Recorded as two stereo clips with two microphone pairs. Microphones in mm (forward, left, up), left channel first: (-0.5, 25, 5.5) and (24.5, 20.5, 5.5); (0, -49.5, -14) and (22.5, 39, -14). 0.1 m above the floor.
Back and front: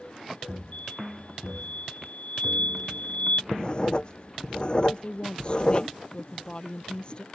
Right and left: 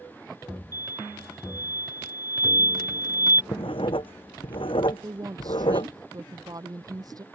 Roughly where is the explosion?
Behind right.